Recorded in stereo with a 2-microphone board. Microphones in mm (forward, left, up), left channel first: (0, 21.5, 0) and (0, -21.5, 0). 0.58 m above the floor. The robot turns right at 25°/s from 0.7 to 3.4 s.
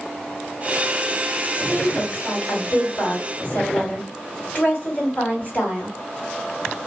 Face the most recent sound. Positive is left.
turn(degrees=125)